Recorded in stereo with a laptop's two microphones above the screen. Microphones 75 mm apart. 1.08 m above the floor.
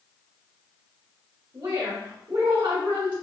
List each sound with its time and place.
1.5 s a woman speaking: 70° right (ahead or behind), 1.7 m